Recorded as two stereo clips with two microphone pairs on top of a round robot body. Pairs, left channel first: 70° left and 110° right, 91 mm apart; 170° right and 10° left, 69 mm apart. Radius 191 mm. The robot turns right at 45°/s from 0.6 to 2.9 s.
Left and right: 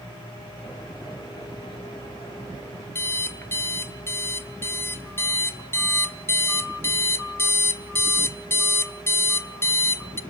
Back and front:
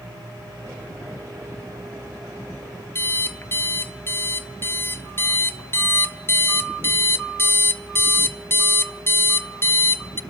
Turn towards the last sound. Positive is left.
turn(degrees=135)